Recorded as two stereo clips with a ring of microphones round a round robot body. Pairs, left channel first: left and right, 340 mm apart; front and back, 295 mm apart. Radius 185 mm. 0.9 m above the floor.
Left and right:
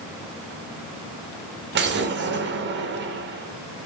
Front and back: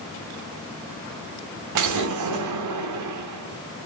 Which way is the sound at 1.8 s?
150° right.